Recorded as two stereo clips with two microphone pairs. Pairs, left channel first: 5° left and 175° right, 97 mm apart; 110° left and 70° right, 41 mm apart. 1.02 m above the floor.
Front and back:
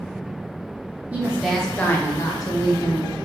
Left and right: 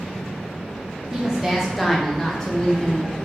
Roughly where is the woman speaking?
Behind right.